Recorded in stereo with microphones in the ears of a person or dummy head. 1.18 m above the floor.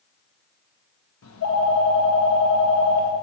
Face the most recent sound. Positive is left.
turn(degrees=80)